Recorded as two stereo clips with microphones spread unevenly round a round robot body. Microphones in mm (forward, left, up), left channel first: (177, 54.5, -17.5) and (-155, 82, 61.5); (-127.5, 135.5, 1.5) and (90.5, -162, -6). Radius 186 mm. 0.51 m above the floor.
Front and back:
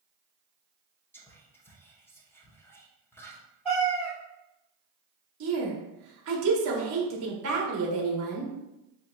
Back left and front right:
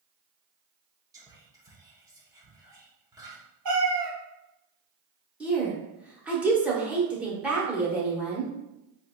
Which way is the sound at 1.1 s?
5° left.